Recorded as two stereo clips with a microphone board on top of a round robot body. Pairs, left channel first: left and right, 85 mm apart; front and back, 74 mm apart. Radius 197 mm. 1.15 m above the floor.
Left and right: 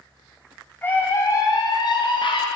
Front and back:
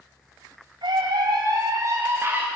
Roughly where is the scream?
Behind.